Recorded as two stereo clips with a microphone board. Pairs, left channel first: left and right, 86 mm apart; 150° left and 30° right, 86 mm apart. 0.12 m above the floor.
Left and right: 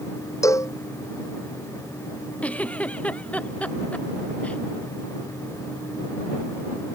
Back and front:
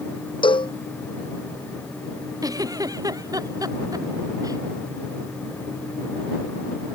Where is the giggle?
15° left.